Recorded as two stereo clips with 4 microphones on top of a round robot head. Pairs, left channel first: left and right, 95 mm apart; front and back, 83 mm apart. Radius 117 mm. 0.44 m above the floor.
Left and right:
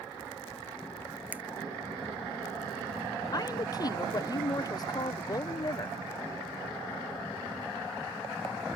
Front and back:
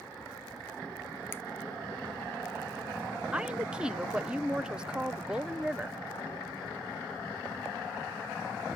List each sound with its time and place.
1.3 s a finger snap: 35° right, 0.8 m
3.3 s a woman speaking: 105° left, 1.0 m